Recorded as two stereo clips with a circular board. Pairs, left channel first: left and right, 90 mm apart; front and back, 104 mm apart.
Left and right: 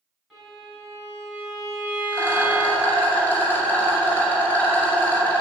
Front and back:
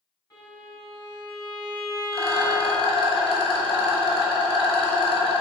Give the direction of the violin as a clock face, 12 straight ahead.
12 o'clock.